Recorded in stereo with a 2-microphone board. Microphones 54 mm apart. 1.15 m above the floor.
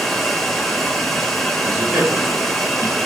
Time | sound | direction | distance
0.0 | running water | 5° left (ahead or behind) | 3 m
1.6 | a man speaking | 40° right (ahead or behind) | 6 m